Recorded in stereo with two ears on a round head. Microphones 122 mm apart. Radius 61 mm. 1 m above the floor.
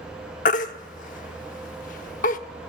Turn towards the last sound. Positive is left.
turn(degrees=60)  # may be behind; listen again after turning